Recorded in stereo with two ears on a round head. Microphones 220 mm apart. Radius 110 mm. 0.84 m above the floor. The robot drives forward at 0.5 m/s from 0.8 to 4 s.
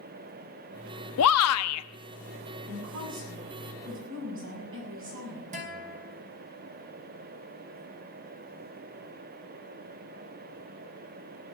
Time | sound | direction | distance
1.2 | a shout | 65° left (ahead or behind) | 1.0 m
2.7 | a woman speaking | 50° right (ahead or behind) | 7.5 m
5.5 | a guitar | 35° right (ahead or behind) | 3 m